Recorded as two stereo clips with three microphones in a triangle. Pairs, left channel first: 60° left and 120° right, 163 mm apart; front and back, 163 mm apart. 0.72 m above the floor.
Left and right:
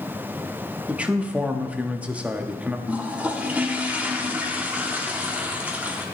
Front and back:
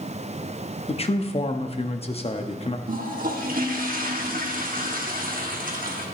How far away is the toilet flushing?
About 1.2 m.